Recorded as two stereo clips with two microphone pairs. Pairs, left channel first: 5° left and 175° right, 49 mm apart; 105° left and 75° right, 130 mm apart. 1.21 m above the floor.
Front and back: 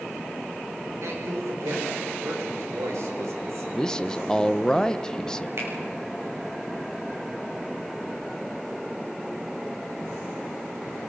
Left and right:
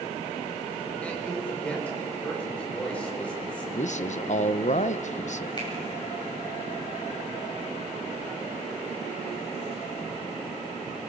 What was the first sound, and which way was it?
A man speaking, 175° right.